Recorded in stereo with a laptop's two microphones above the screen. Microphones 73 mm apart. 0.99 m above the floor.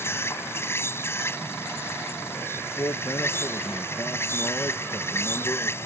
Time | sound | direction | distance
0.0 | an insect | 35° left (ahead or behind) | ?
2.5 | a man speaking | 45° left (ahead or behind) | ?